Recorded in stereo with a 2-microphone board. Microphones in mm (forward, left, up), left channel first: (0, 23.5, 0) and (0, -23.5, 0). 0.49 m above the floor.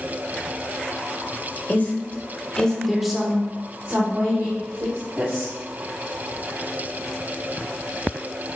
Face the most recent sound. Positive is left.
turn(degrees=-70)  # may be behind; listen again after turning